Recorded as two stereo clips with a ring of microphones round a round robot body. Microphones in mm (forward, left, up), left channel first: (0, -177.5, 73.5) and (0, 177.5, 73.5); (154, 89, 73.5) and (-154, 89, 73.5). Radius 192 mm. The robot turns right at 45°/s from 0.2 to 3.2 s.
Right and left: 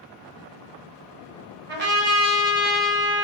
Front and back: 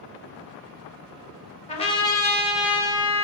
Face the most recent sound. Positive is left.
turn(degrees=120)